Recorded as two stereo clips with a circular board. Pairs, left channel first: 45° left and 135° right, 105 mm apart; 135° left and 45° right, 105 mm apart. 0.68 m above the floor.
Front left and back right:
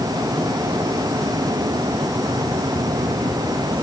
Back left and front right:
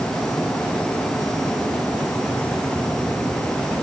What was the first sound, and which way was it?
Only background noise.